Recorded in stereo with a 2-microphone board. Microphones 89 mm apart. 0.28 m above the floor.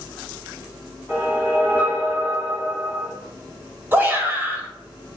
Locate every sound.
1.1 s a whoosh: 20° right (ahead or behind), 1.5 m
3.9 s a shout: 25° right (ahead or behind), 1.1 m